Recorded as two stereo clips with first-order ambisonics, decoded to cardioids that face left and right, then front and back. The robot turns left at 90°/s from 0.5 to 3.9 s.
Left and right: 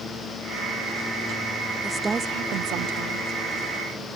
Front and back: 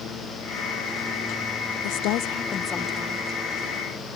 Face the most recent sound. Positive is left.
turn(degrees=180)